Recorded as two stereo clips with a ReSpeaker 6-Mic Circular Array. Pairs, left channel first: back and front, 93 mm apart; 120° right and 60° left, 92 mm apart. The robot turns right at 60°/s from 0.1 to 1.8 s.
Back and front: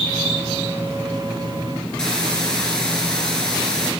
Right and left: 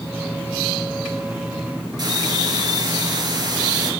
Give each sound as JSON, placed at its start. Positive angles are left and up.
{"t": 2.0, "sound": "a hiss", "azimuth_deg": 100, "distance_m": 2.0}